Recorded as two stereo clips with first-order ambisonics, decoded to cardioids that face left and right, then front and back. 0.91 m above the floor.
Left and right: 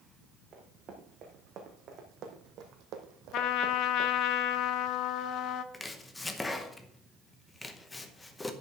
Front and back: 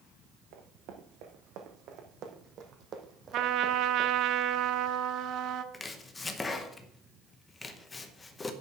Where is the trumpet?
135° left, 0.8 m.